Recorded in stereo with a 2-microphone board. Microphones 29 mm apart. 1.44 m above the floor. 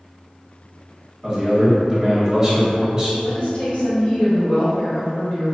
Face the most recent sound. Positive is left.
turn(degrees=65)  # may be behind; listen again after turning